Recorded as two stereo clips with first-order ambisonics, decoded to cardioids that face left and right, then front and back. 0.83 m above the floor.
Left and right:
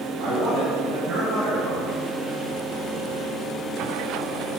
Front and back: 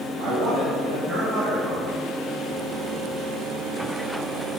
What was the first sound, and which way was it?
A man speaking, 150° right.